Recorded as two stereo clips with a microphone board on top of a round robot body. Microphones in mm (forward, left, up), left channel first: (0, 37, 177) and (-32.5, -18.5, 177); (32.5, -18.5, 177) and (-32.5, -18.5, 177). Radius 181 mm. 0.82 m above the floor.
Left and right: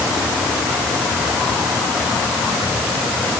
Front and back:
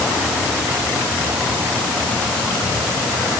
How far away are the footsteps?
No footsteps in this recording.